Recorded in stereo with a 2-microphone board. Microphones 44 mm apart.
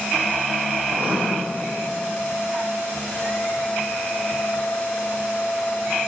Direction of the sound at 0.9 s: 40° right (ahead or behind).